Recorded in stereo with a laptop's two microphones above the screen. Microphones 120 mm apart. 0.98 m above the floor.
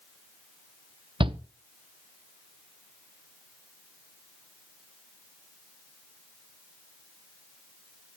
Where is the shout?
45° right (ahead or behind), 0.6 m.